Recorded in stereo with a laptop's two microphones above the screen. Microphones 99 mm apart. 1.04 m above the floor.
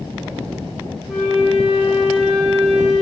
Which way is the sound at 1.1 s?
5° left (ahead or behind).